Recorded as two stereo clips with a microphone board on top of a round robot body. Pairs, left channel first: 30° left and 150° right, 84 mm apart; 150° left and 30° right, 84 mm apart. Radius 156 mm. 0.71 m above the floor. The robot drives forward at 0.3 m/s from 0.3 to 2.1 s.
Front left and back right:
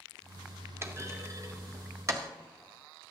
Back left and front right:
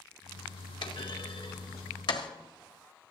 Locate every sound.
0.8 s a clunk: 155° left, 1.3 m; by 2.3 s 160° left, 1.6 m